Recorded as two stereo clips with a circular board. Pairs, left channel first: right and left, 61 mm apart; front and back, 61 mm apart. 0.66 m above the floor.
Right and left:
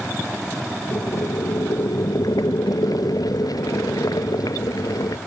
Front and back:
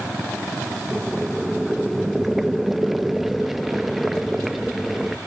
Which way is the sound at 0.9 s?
95° right.